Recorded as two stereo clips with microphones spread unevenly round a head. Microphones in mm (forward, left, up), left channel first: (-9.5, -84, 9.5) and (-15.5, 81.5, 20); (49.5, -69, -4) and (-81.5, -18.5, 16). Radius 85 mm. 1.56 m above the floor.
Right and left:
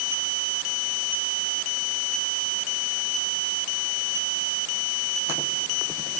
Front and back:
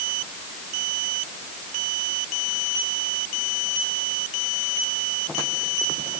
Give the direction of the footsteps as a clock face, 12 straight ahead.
No footsteps in this recording.